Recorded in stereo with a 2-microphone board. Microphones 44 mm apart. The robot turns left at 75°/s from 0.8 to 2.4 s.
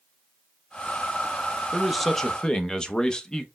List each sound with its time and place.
1.7 s a man speaking: 170° right, 0.6 m; by 3.5 s 140° left, 0.6 m